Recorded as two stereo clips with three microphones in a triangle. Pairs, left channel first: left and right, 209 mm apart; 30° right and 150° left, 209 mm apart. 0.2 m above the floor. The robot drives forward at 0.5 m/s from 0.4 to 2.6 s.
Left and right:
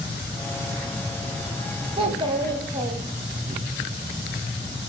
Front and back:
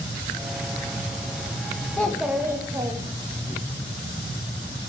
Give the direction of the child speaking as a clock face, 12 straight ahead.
3 o'clock.